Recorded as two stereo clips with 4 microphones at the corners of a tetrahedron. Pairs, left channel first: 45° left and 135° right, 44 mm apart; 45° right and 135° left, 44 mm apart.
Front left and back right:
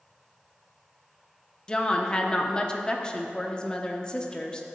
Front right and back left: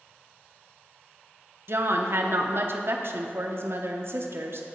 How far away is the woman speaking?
About 0.9 m.